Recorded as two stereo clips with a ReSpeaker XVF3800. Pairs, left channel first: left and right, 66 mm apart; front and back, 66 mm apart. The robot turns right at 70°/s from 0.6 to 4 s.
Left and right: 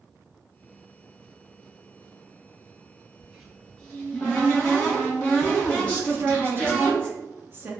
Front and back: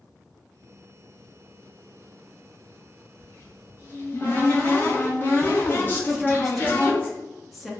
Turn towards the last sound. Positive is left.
turn(degrees=-90)